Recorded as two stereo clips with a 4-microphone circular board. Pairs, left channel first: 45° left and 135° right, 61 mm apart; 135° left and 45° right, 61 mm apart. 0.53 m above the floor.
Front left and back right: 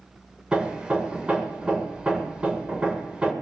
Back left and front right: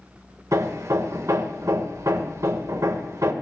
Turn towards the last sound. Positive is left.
turn(degrees=-65)